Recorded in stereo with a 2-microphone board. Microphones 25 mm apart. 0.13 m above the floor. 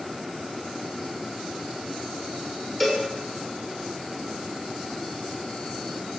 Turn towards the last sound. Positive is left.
turn(degrees=5)  # may be behind; listen again after turning